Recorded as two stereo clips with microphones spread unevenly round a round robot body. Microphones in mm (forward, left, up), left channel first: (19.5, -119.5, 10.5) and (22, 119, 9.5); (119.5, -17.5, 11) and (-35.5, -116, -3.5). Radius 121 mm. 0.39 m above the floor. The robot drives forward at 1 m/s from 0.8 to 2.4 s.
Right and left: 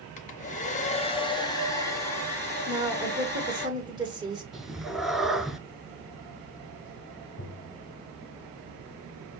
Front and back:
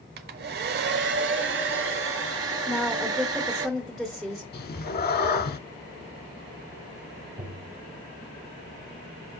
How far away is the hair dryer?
About 0.7 m.